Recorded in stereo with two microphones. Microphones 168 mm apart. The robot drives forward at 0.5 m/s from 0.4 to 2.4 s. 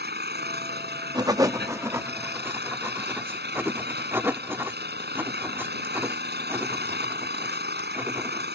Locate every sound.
0.0 s an engine running: 80° right; by 8.6 s 85° right
1.1 s writing: 25° right (ahead or behind); by 8.5 s 15° right (ahead or behind)